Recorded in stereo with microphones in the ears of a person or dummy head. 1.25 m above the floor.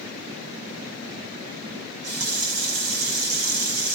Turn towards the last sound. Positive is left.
turn(degrees=-80)